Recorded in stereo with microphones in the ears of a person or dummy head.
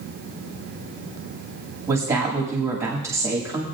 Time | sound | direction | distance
1.9 | a woman speaking | 20° right (ahead or behind) | 2.0 m